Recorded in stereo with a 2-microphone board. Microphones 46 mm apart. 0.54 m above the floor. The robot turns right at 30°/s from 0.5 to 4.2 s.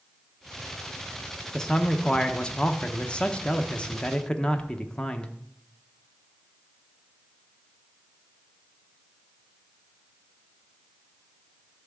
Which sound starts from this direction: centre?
A man speaking, at 1.5 s.